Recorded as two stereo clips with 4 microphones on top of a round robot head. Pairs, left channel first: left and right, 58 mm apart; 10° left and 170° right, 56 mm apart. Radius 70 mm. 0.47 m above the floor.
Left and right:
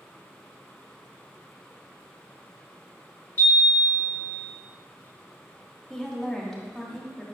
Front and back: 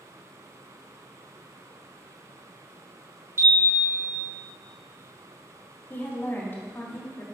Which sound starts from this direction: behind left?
A chime, at 3.4 s.